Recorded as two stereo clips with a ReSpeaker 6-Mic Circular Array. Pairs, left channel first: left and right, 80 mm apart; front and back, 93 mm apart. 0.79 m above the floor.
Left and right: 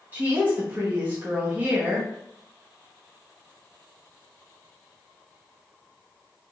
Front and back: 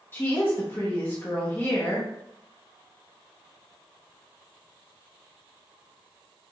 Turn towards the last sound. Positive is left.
turn(degrees=-40)